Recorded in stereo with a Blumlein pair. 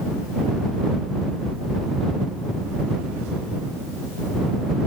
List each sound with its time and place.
Only background noise.